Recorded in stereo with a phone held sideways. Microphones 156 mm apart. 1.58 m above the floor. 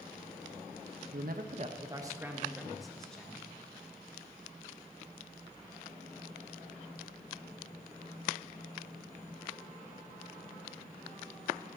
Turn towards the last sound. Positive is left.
turn(degrees=10)  # may be behind; listen again after turning